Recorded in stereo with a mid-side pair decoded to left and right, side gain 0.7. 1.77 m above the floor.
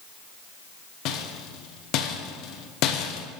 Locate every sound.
1.1 s a rattle: 55° left, 0.8 m